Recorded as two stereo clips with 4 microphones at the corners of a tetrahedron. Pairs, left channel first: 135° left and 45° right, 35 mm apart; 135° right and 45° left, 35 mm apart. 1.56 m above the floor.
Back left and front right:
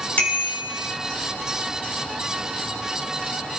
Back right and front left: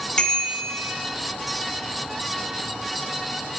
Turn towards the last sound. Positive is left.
turn(degrees=160)